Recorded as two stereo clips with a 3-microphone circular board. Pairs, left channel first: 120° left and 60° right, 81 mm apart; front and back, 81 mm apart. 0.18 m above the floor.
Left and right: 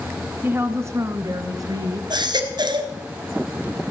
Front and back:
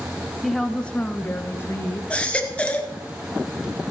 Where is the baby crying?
75° right, 1.4 m.